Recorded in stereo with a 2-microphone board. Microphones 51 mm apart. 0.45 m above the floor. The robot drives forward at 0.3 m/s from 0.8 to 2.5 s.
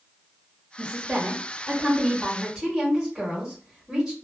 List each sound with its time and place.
0.8 s a woman speaking: 20° right (ahead or behind), 1.0 m; by 4.2 s 15° right (ahead or behind), 1.4 m